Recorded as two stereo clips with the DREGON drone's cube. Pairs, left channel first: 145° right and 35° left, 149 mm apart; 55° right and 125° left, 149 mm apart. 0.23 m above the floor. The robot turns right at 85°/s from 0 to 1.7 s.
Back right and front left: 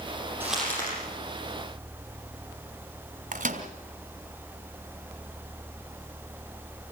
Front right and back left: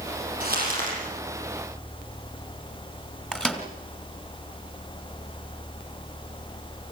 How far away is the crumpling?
About 8 m.